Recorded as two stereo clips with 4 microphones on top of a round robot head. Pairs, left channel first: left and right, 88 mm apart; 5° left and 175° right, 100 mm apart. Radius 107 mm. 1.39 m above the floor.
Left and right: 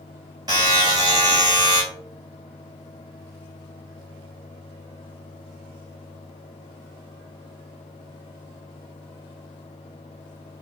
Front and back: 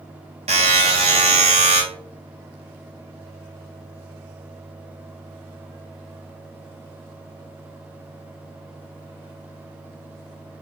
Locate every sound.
0.5 s a buzzer: 150° right, 0.9 m